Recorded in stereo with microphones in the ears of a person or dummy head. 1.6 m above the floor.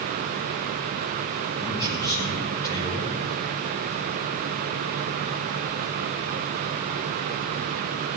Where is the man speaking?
20° left (ahead or behind), 7.5 m.